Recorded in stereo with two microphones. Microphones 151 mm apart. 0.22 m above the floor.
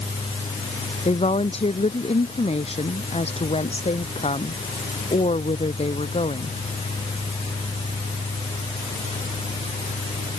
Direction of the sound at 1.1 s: 40° left (ahead or behind).